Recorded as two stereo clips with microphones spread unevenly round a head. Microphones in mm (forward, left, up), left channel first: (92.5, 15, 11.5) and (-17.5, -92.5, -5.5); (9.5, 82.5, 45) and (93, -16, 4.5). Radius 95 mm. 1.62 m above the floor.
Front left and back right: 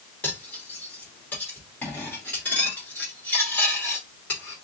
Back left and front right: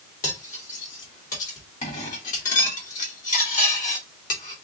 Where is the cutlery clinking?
125° left, 2.5 m.